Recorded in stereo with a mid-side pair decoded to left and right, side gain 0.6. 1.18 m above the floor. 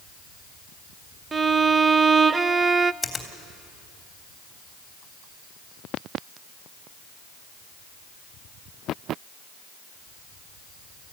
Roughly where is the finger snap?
Ahead.